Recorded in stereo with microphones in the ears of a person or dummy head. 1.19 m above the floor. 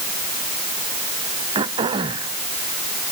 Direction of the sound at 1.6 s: 35° right (ahead or behind).